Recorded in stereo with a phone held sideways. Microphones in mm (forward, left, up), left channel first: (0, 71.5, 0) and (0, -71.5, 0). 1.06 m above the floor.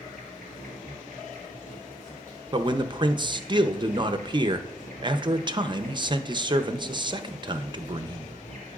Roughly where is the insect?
Left.